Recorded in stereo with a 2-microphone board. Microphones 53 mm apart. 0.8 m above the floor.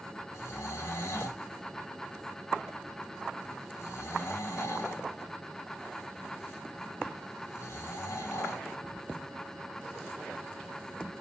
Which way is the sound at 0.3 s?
65° left (ahead or behind).